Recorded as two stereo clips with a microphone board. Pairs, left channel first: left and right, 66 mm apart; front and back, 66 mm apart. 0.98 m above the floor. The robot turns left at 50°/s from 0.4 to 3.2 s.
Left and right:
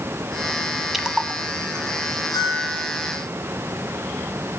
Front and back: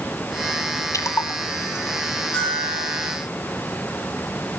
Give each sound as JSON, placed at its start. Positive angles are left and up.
{"t": 0.9, "sound": "a splash", "azimuth_deg": -5, "distance_m": 1.3}
{"t": 2.3, "sound": "a bell", "azimuth_deg": 70, "distance_m": 7.0}